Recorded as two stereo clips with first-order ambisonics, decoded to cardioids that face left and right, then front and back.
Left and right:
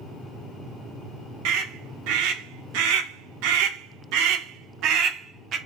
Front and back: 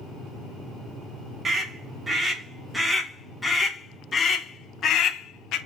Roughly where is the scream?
Right.